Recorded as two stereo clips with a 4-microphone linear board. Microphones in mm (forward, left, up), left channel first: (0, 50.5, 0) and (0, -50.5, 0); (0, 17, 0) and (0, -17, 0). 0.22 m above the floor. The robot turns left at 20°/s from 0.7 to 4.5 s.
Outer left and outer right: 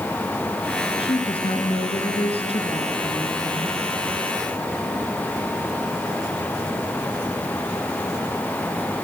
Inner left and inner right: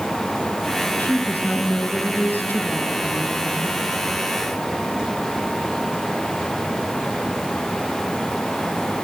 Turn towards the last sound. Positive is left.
turn(degrees=35)